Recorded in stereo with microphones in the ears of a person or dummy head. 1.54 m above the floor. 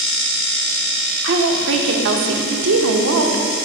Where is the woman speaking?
70° right (ahead or behind), 1.0 m.